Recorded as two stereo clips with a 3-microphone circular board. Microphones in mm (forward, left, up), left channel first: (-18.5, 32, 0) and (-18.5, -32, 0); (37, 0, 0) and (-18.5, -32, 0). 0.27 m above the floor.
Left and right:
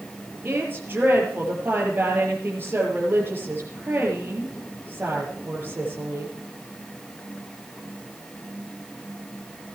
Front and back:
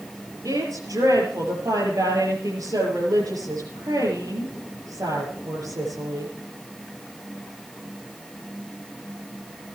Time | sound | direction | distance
0.5 | a woman speaking | 145° right | 6.5 m